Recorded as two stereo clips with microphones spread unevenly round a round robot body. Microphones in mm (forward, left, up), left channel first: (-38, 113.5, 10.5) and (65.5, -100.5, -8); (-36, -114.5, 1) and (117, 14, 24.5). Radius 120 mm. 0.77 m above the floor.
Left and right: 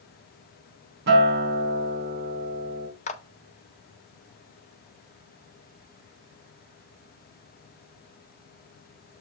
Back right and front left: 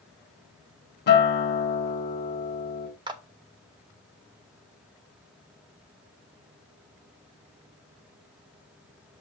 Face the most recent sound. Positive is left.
turn(degrees=95)